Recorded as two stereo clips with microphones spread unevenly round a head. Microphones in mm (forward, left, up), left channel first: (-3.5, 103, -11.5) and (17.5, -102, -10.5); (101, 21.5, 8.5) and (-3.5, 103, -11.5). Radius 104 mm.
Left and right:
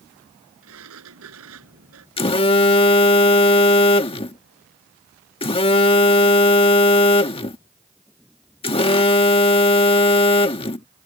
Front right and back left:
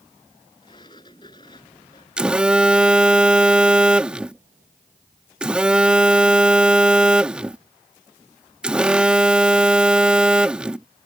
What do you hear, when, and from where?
0.6 s a sliding door: 110° right
2.2 s a phone buzzing: 50° left